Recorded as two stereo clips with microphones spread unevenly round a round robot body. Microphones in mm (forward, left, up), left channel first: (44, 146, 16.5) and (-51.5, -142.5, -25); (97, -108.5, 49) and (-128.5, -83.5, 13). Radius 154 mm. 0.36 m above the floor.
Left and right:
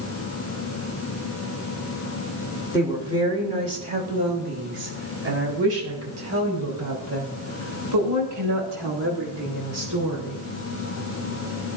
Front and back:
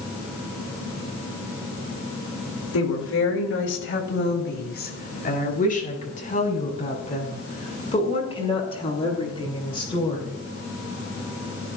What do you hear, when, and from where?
2.7 s a woman speaking: 25° right, 4 m; by 10.3 s 80° right, 11.5 m